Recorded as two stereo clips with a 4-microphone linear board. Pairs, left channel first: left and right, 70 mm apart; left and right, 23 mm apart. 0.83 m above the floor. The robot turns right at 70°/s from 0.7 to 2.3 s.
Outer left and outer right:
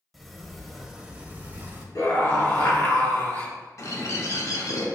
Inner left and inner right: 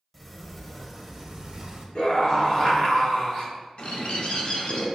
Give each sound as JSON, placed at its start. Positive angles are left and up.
{"t": 0.1, "sound": "a sliding door", "side_deg": 0, "distance_m": 0.6}
{"t": 1.9, "sound": "a scream", "side_deg": 55, "distance_m": 1.4}
{"t": 3.8, "sound": "a bird", "side_deg": 50, "distance_m": 0.7}